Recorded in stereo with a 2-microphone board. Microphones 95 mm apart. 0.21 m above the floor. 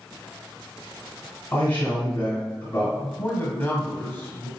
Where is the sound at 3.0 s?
20° left (ahead or behind), 1.1 m.